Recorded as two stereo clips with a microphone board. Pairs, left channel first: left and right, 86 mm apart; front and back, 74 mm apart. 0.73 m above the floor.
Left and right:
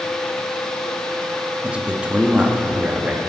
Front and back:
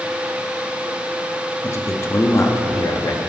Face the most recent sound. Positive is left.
turn(degrees=-20)